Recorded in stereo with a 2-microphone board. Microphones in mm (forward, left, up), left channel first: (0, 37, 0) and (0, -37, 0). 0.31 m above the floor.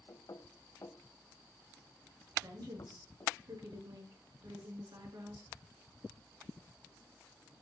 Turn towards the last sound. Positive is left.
turn(degrees=-65)  # may be behind; listen again after turning